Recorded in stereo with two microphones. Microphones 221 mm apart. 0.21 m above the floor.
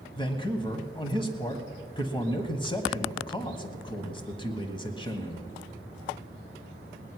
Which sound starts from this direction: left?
A man speaking, at 0.1 s.